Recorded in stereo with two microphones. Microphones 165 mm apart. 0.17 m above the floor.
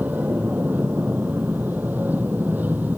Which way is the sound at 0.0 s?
10° right (ahead or behind).